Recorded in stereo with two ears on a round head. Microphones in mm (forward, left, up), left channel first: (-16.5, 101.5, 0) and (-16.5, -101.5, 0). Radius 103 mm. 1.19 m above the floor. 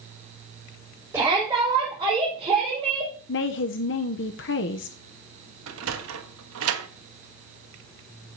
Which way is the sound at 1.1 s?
10° right (ahead or behind).